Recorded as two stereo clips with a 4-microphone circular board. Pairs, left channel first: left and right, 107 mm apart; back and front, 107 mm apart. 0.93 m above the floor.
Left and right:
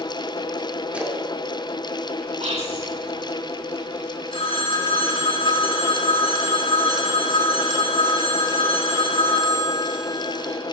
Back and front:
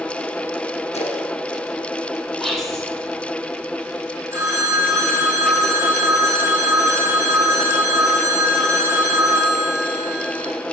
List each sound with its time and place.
0.9 s a splash: 170° right, 1.7 m
2.4 s whispering: 90° right, 3.5 m
4.3 s a phone ringing: 65° left, 4.5 m